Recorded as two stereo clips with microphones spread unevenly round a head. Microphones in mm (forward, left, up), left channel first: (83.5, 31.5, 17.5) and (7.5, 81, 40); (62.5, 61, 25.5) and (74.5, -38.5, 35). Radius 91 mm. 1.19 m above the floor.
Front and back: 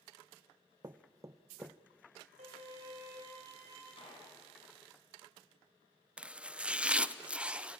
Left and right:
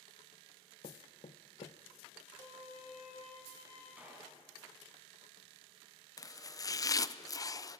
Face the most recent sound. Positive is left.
turn(degrees=60)